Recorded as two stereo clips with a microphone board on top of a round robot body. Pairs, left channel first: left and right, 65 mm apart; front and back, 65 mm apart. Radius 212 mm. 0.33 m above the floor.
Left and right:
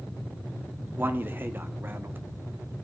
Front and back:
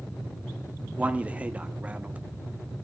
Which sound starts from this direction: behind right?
A man speaking, at 1.0 s.